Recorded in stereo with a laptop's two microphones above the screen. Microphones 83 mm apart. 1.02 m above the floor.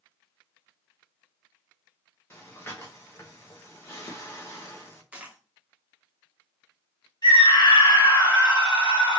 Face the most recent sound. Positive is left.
turn(degrees=65)  # may be behind; listen again after turning